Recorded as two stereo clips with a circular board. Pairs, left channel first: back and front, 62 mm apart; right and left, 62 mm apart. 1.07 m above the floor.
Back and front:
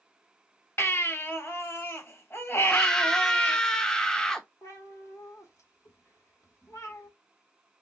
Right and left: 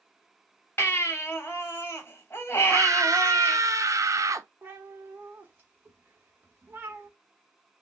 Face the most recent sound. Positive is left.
turn(degrees=150)